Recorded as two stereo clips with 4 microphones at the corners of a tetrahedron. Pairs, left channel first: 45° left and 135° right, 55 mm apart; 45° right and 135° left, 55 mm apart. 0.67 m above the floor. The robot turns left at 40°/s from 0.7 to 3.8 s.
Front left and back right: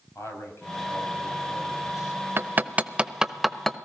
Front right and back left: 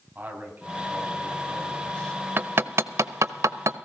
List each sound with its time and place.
0.1 s a man speaking: 80° left, 4.5 m; by 2.3 s 15° left, 4.5 m
2.4 s hammering: straight behind, 0.6 m; by 3.8 s 125° left, 0.6 m